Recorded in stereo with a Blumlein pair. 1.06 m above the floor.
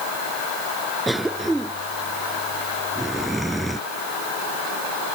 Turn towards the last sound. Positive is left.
turn(degrees=-5)